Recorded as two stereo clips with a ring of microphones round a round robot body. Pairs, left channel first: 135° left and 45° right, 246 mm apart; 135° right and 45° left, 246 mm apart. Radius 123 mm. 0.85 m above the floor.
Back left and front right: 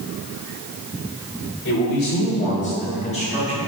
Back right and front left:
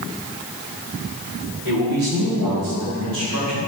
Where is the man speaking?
90° left, 2.5 m; by 3.6 s 70° left, 4.5 m.